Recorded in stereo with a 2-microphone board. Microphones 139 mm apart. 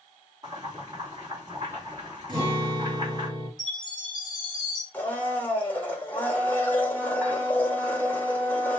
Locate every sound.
0.4 s boiling: 30° right (ahead or behind), 2 m
2.3 s a guitar: 40° right (ahead or behind), 3.5 m
3.6 s a chime: 35° right (ahead or behind), 3.5 m
4.9 s a blender: 10° left (ahead or behind), 1.4 m